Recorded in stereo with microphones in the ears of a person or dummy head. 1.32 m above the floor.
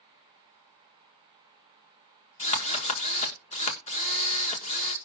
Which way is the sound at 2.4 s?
40° left (ahead or behind).